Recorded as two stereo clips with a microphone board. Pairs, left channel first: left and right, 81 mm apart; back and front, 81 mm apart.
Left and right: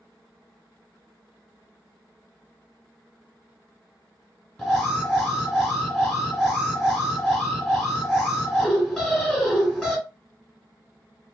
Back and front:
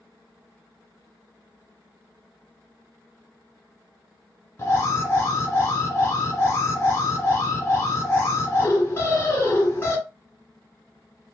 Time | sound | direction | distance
4.6 | an alarm | 175° left | 2 m